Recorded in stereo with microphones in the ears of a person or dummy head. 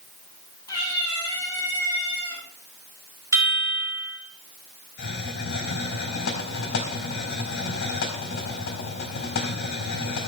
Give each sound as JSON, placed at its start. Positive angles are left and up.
{"t": 0.7, "sound": "a cat meowing", "side_deg": 20, "distance_m": 6.5}
{"t": 3.3, "sound": "a chime", "side_deg": -20, "distance_m": 4.0}
{"t": 5.0, "sound": "a hiss", "side_deg": 55, "distance_m": 3.5}